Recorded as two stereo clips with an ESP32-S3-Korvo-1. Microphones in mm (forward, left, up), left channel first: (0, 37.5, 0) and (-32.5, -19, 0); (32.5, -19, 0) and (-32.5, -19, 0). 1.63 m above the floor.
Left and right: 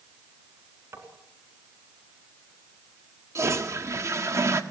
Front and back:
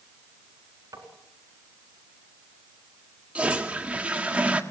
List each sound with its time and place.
0.9 s tapping: 160° right, 4 m
3.4 s a toilet flushing: 115° right, 1.5 m